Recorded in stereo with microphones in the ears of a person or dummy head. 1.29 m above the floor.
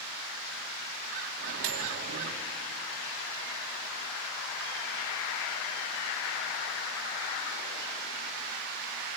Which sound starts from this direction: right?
A microwave, at 1.4 s.